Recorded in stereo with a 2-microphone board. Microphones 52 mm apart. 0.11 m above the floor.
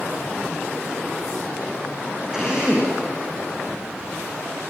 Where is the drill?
15° right (ahead or behind), 6.5 m.